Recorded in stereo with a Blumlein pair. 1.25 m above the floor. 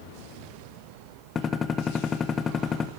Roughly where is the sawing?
No sawing in this recording.